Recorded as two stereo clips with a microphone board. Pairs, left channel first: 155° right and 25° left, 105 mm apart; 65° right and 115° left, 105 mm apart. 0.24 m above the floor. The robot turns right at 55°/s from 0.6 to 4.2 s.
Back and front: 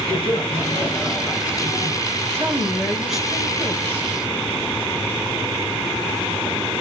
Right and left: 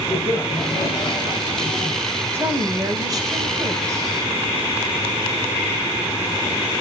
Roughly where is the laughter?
Behind right.